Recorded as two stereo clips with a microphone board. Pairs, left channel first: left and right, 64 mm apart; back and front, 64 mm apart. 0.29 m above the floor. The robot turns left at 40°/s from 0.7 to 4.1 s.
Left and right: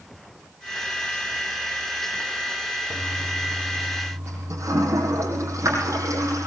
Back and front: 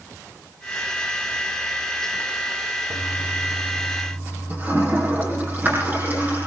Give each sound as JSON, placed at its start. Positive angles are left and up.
{"t": 2.9, "sound": "a toilet flushing", "azimuth_deg": -10, "distance_m": 9.0}